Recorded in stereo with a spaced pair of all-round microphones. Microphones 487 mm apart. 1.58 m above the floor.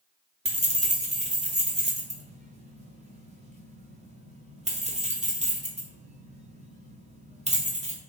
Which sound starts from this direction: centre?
Keys jangling, at 0.5 s.